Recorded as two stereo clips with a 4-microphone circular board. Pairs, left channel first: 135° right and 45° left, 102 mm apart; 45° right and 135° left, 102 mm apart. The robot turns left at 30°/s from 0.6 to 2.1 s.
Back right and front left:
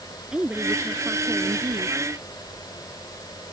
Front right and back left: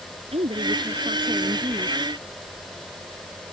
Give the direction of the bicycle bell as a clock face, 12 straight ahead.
No bicycle bell in this recording.